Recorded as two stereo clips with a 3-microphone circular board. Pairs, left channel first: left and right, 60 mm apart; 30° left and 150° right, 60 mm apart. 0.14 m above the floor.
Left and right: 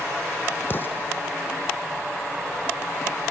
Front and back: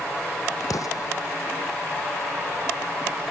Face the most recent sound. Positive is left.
turn(degrees=40)